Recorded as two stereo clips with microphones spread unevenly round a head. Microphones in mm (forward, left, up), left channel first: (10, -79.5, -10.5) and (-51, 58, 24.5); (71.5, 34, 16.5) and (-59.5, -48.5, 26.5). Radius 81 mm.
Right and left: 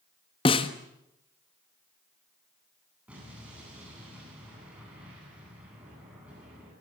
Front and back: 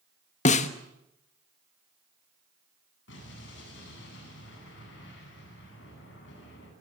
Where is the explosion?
30° left, 9 m.